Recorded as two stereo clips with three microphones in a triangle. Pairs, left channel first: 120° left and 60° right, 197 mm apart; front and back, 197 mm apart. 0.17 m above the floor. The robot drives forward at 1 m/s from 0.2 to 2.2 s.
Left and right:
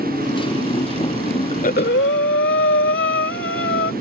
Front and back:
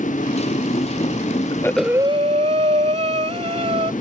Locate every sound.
0.0 s a motorcycle: 55° left; by 4.0 s 65° left
1.5 s breathing: 65° left; by 3.9 s 125° left